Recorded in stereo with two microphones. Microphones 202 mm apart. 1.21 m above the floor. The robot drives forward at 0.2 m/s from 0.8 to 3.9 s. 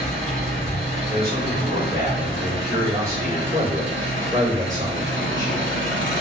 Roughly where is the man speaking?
Right.